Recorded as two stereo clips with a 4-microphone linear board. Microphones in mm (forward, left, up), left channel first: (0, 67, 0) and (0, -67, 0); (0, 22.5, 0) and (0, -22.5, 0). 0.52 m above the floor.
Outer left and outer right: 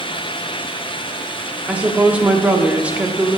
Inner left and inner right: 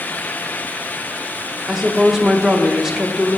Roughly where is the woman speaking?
Centre.